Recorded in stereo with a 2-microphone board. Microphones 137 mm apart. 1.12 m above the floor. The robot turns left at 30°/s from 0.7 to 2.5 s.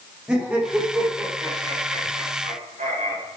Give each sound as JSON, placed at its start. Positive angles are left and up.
{"t": 0.3, "sound": "laughter", "side_deg": -10, "distance_m": 3.0}